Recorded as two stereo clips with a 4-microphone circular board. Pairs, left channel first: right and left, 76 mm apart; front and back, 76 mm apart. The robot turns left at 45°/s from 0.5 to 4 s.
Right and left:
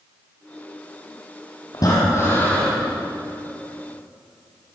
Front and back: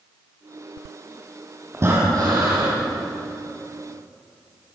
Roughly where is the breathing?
Behind right.